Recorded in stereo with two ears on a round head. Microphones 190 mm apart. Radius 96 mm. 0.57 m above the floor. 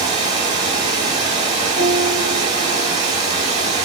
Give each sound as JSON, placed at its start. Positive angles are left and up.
{"t": 0.0, "sound": "running water", "side_deg": -20, "distance_m": 3.5}
{"t": 1.8, "sound": "a piano", "side_deg": -20, "distance_m": 3.0}